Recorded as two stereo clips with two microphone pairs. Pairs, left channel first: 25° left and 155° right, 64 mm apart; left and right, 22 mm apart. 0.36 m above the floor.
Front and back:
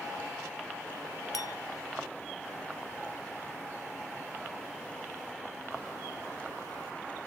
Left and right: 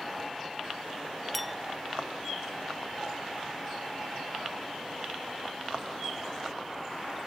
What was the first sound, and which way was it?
A clink, straight ahead.